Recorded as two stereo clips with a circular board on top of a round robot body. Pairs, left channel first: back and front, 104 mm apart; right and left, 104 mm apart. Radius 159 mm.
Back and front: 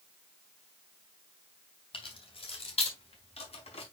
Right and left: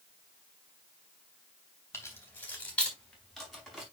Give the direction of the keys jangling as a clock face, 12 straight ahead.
5 o'clock.